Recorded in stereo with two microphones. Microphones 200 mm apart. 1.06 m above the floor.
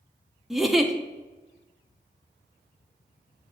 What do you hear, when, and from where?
0.5 s a giggle: centre (ahead or behind), 0.7 m